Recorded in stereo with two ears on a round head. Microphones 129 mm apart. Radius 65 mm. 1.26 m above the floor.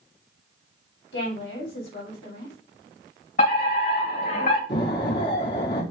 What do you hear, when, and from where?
1.1 s a woman speaking: 90° left, 3 m
3.4 s a fire alarm: 60° left (ahead or behind), 3 m
4.7 s an explosion: 70° left (ahead or behind), 2.5 m